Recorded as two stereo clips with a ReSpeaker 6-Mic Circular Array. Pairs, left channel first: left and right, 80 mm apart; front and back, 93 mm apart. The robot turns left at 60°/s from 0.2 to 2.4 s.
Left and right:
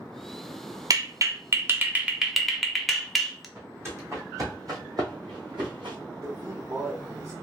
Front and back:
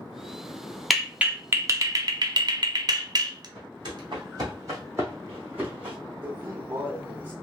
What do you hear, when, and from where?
0.9 s a clap: 90° right, 0.6 m; by 3.5 s straight behind, 0.6 m
3.5 s footsteps: 150° right, 1.9 m; by 6.0 s 105° right, 2 m
6.2 s a man speaking: 120° right, 1.1 m